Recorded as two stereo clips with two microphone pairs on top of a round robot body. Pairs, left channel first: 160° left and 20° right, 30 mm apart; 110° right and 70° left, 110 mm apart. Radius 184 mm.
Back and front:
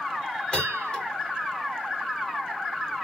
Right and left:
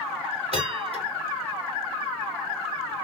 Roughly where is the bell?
Left.